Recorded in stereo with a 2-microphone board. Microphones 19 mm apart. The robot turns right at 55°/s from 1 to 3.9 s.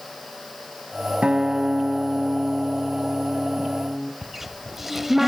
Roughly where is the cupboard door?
Centre.